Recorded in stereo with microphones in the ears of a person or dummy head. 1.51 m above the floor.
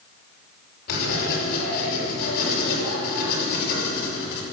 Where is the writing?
50° left (ahead or behind), 5.5 m.